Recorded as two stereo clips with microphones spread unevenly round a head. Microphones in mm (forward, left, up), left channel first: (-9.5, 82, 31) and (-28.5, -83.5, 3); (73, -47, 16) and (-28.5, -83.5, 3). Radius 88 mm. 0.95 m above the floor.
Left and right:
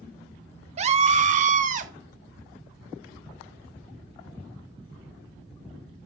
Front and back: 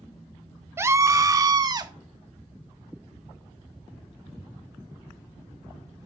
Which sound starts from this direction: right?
A scream, at 0.8 s.